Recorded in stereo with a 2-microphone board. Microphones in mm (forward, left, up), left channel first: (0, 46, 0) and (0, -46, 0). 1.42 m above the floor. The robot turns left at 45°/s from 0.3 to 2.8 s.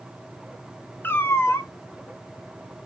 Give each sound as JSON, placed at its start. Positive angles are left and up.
{"t": 1.0, "sound": "a cat meowing", "side_deg": 25, "distance_m": 0.6}